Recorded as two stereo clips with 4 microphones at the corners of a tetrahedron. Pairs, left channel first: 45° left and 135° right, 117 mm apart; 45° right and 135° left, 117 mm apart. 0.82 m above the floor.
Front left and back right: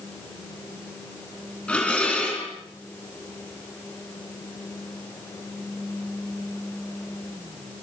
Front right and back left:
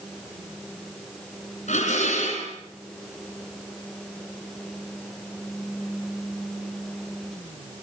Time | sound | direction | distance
1.7 | dishes clattering | 35° right | 5.5 m